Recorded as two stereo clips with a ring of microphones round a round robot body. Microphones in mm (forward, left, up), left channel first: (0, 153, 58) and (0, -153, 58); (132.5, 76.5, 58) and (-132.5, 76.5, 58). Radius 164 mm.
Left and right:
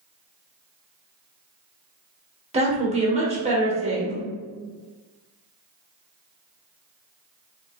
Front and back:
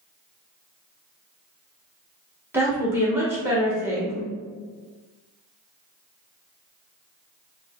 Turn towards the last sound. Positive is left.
turn(degrees=-115)